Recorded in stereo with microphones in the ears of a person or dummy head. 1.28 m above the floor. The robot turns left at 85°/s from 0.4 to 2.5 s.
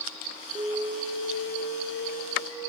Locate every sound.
0.6 s an alarm: 160° right, 5.5 m; by 2.7 s 35° left, 5.5 m